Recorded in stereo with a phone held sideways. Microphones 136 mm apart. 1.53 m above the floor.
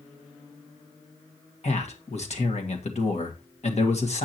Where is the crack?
No crack in this recording.